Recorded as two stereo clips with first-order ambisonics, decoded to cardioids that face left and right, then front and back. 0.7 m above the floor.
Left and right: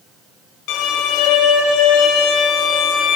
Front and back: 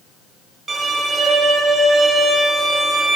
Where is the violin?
110° left, 1.3 m.